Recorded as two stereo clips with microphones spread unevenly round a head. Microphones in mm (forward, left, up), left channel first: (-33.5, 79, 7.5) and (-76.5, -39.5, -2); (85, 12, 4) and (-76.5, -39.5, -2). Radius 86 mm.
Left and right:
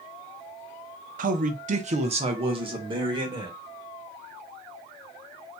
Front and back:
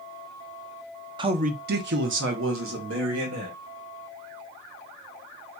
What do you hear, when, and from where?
1.2 s a man speaking: 100° right, 0.6 m; by 3.5 s 165° right, 2.0 m